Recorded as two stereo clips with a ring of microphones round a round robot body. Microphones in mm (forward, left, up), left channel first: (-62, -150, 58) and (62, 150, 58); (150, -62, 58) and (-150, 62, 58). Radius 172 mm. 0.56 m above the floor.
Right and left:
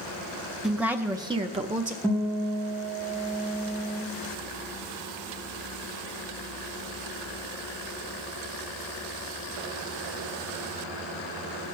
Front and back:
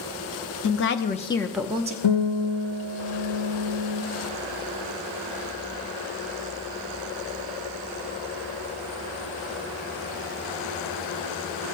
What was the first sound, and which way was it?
A woman speaking, 20° right.